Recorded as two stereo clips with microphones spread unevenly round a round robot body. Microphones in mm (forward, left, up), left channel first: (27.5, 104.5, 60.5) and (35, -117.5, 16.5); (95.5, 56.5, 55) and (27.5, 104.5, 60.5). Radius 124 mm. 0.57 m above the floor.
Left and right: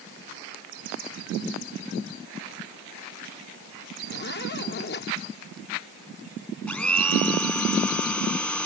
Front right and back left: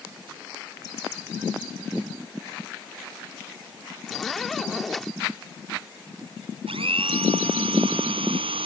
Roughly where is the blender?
Behind.